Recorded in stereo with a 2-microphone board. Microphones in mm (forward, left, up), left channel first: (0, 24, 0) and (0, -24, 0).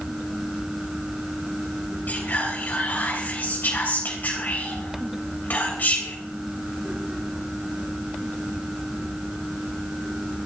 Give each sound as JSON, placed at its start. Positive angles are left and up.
{"t": 2.1, "sound": "whispering", "side_deg": 40, "distance_m": 3.5}